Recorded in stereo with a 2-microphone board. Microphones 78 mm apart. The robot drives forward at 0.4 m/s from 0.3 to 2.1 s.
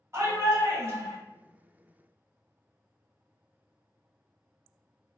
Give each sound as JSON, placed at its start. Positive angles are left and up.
{"t": 0.1, "sound": "a shout", "side_deg": -35, "distance_m": 1.3}